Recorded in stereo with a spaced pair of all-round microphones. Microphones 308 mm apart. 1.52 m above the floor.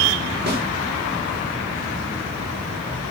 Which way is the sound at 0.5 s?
35° right (ahead or behind).